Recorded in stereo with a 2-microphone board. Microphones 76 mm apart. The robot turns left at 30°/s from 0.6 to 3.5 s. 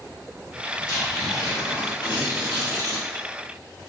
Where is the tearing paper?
120° left, 3.5 m; by 3.0 s 55° left, 3.5 m.